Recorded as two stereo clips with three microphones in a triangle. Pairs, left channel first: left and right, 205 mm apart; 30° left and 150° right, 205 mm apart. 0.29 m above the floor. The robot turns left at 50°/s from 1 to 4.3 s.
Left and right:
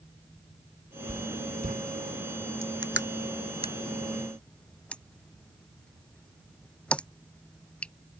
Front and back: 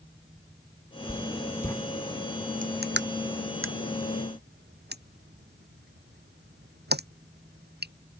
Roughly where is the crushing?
Right.